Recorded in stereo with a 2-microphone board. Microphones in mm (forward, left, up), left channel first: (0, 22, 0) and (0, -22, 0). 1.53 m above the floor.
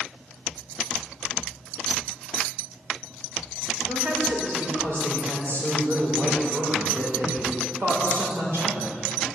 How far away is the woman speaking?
About 4.5 m.